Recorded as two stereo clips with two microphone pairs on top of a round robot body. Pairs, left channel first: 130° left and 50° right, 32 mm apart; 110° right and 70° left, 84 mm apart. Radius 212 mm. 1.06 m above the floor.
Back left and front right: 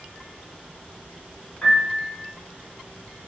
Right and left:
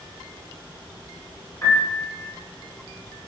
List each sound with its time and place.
1.6 s a piano: 170° right, 1.3 m